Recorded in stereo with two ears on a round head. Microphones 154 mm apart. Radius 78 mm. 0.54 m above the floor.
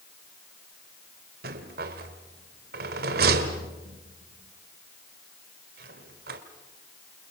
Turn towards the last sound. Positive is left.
turn(degrees=-60)  # may be behind; listen again after turning